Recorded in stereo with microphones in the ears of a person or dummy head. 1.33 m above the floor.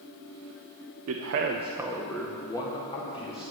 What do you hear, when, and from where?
1.1 s a man speaking: 85° right, 1.0 m; by 3.5 s 30° left (ahead or behind), 3 m